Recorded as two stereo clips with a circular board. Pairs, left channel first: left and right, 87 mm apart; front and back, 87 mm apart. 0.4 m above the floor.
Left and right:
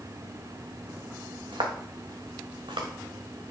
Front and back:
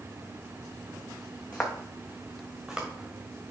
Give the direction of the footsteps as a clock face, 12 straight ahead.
2 o'clock.